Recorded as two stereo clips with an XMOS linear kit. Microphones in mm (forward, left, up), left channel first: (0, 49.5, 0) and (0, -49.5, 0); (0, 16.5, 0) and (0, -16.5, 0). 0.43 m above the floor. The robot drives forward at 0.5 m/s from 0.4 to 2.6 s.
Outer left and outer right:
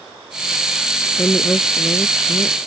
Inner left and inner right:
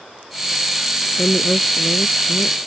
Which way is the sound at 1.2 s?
20° left (ahead or behind).